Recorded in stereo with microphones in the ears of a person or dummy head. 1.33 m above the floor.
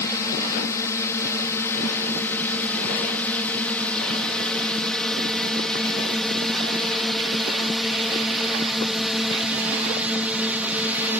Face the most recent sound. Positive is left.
turn(degrees=-5)  # may be behind; listen again after turning